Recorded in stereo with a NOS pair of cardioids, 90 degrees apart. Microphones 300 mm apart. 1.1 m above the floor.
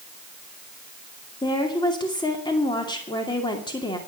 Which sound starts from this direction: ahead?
A woman speaking, at 1.4 s.